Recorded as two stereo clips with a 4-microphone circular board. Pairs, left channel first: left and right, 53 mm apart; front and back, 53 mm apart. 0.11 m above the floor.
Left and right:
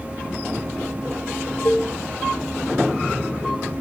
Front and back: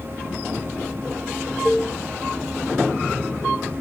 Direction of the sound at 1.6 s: 85° left.